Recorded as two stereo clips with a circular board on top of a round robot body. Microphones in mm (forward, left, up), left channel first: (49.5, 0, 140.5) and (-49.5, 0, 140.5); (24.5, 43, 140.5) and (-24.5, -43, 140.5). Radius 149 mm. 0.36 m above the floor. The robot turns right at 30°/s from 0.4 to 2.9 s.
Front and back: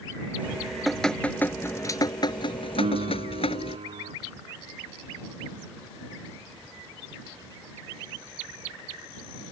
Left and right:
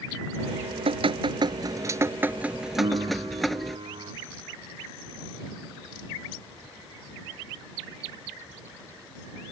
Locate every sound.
0.4 s dripping: 105° right; by 3.8 s 30° right
2.8 s a piano: 160° right; by 4.1 s 155° right